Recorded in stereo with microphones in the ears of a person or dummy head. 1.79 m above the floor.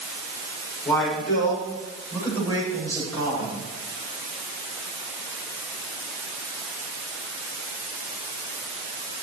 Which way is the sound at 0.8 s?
5° left (ahead or behind).